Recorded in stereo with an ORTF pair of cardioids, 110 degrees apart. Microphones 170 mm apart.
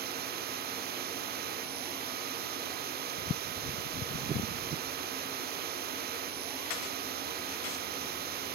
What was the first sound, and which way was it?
A machine running, 65° right.